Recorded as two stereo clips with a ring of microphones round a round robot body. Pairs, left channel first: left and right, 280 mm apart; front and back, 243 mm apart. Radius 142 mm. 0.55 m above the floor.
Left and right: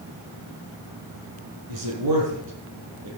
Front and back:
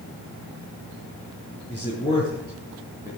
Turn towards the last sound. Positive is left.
turn(degrees=-75)